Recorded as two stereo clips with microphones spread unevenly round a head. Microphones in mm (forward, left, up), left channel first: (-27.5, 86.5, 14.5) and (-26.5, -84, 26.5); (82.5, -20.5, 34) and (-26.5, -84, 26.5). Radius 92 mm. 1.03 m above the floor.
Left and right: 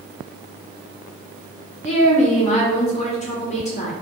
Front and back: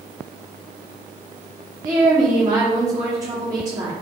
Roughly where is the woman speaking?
Behind left.